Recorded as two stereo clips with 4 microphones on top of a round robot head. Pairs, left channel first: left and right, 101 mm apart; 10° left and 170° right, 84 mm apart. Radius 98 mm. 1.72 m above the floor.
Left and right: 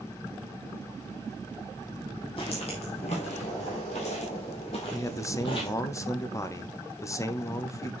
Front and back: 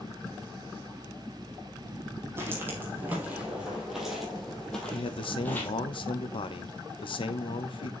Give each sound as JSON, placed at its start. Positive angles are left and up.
{"t": 2.4, "sound": "footsteps", "azimuth_deg": 140, "distance_m": 2.5}
{"t": 4.9, "sound": "a man speaking", "azimuth_deg": 30, "distance_m": 1.1}